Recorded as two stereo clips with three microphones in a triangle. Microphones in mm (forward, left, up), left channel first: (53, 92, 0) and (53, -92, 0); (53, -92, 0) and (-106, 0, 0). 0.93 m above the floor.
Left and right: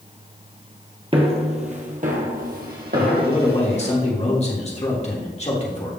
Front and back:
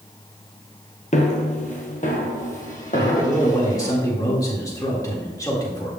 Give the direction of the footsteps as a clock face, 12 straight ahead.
2 o'clock.